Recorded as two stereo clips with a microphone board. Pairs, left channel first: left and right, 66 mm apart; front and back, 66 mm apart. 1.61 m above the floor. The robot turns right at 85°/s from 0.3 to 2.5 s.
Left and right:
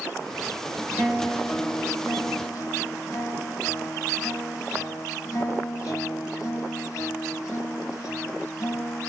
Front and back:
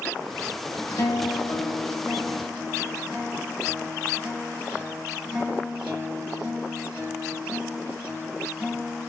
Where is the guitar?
20° right, 1.8 m; by 9.1 s 115° left, 1.8 m.